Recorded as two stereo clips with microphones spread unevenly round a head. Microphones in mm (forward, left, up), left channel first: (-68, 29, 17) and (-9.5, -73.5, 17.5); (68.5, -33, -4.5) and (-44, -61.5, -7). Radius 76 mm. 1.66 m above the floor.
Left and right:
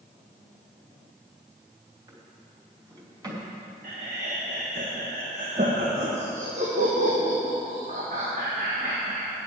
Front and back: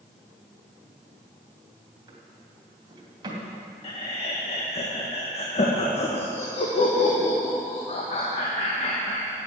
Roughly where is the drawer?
Behind right.